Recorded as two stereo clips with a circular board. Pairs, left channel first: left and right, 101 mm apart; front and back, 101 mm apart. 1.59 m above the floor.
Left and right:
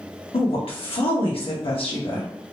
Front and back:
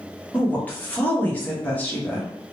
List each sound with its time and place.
0.3 s a woman speaking: 70° left, 1.1 m